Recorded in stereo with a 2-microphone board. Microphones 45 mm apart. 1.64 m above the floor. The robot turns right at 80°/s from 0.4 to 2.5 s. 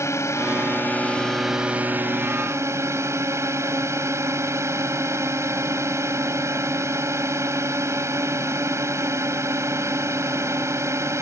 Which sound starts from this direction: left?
A drone, at 0.0 s.